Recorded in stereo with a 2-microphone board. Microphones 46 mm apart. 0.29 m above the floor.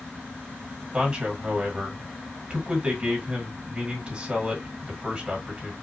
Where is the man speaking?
25° right (ahead or behind), 2 m.